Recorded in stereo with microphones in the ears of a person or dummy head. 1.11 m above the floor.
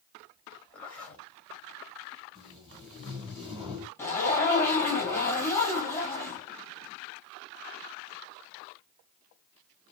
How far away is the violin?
I don't hear a violin.